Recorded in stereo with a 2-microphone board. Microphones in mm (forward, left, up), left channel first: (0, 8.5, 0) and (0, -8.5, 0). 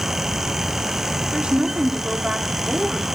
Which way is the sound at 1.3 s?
70° right (ahead or behind).